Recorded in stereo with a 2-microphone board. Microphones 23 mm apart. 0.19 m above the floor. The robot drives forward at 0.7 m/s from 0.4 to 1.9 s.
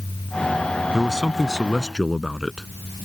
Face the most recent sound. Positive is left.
turn(degrees=5)  # may be behind; listen again after turning